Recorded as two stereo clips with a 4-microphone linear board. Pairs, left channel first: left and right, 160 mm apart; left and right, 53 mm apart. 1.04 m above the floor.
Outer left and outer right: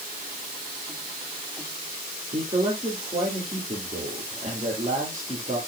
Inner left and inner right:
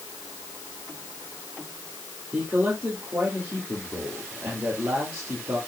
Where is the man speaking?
50° right (ahead or behind), 2.5 m.